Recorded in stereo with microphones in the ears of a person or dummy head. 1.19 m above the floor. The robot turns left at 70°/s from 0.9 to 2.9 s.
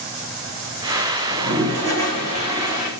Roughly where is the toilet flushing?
Right.